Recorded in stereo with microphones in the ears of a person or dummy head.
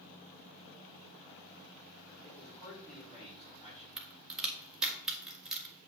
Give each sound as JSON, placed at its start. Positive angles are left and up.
{"t": 2.2, "sound": "a man speaking", "side_deg": 30, "distance_m": 4.5}
{"t": 4.0, "sound": "a crack", "side_deg": 0, "distance_m": 1.8}